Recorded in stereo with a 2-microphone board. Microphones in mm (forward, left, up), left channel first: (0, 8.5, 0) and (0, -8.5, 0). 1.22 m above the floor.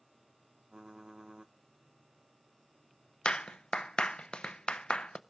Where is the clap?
80° left, 0.6 m.